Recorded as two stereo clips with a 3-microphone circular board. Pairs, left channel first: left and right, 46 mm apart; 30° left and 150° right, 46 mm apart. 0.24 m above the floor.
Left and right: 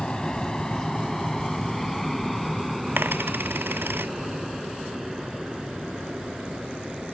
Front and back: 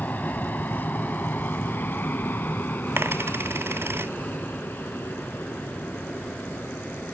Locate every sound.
0.0 s an aircraft: 25° left; by 7.1 s 10° right
3.0 s a dropped coin: 125° right